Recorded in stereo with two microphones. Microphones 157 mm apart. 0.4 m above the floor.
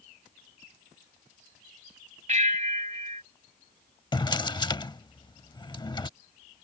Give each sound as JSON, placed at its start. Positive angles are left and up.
{"t": 2.3, "sound": "a bell", "side_deg": -50}
{"t": 4.1, "sound": "a drawer", "side_deg": 30}